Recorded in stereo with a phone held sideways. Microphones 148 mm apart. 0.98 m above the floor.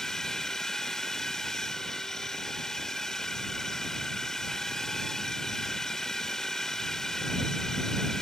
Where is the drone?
5° left (ahead or behind).